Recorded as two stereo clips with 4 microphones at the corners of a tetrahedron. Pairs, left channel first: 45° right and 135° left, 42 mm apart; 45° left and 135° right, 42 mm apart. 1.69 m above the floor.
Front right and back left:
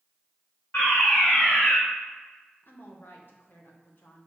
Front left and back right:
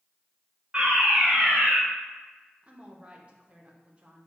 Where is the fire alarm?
75° right, 3 m.